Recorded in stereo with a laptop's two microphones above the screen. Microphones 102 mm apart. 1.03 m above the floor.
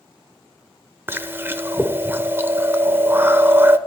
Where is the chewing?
20° right (ahead or behind), 0.7 m.